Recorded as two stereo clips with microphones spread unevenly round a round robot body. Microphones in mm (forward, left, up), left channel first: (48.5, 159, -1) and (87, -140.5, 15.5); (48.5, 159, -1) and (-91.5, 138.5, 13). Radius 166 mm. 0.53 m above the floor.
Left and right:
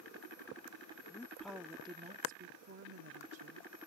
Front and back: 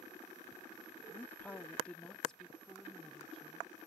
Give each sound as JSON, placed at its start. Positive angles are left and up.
{"t": 1.1, "sound": "a woman speaking", "azimuth_deg": 45}